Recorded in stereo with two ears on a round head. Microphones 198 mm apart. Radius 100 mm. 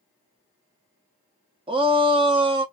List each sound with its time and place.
1.7 s a shout: 25° right (ahead or behind), 0.7 m